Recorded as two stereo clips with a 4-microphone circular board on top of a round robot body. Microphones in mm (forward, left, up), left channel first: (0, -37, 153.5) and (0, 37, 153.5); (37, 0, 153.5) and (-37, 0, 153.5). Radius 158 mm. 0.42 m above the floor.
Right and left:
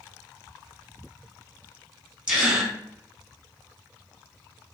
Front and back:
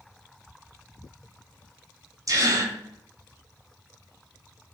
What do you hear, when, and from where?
2.3 s a gasp: 165° left, 1.6 m